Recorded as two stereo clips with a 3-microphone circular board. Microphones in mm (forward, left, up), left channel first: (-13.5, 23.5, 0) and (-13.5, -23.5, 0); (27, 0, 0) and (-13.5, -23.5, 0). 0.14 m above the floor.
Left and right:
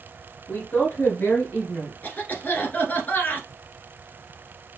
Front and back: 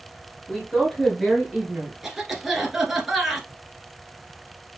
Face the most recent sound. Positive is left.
turn(degrees=130)